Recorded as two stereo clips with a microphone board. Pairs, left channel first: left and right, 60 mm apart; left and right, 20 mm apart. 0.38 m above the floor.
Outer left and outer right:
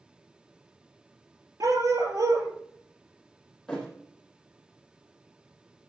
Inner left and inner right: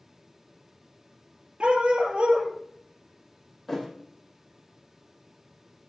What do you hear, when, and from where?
1.6 s a dog barking: 85° right, 3 m
3.7 s a thud: 5° left (ahead or behind), 5 m